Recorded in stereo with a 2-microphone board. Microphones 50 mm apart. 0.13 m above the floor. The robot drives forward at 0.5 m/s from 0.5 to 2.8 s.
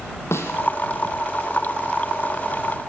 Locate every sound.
0.3 s a snare drum: 65° left (ahead or behind), 3 m